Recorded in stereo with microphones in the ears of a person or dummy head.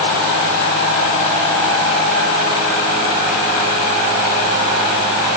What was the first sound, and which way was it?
Only background noise.